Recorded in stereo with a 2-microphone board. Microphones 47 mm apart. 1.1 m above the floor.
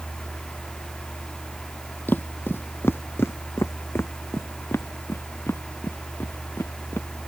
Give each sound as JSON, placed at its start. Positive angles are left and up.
{"t": 2.1, "sound": "footsteps", "side_deg": 45}